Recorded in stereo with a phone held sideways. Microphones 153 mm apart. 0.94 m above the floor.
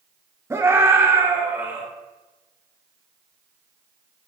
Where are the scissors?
No scissors in this recording.